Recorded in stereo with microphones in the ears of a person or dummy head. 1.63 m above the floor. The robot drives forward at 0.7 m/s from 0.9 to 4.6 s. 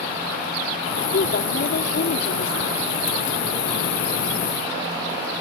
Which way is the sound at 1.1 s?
70° left (ahead or behind).